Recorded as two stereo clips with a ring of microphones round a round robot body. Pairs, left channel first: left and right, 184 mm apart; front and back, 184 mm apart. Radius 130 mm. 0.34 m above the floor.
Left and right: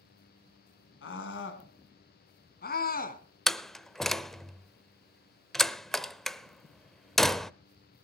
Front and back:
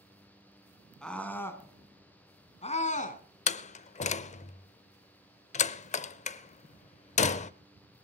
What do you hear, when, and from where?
1.0 s a scream: 85° left, 3 m; by 3.2 s 45° left, 3 m
3.5 s a door slam: 5° left, 0.6 m